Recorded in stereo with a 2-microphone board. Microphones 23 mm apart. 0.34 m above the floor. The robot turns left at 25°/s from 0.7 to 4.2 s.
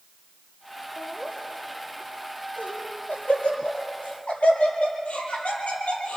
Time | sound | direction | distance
1.0 | laughter | 30° left (ahead or behind) | 8 m